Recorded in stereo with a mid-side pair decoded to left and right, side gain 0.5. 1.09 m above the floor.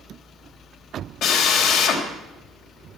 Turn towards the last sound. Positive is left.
turn(degrees=65)